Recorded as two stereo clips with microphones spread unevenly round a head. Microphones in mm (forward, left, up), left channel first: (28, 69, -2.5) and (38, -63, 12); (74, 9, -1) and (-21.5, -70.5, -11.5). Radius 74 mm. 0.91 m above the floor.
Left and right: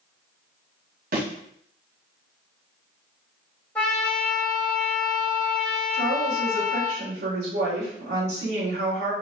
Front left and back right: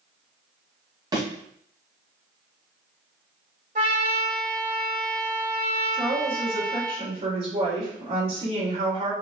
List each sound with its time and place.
1.1 s a thud: 85° right, 2.5 m
3.8 s a trumpet: 175° left, 1.8 m
5.9 s a woman speaking: 100° right, 3 m